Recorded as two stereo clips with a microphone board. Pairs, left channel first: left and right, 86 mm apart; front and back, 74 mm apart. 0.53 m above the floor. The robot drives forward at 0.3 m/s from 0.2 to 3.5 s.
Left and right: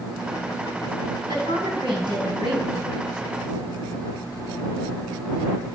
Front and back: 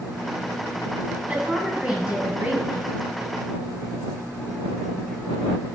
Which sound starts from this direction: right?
A woman speaking, at 1.3 s.